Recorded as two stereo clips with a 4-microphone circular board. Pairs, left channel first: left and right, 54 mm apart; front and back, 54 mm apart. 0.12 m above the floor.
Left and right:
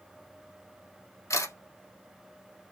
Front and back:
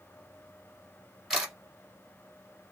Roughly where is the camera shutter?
Left.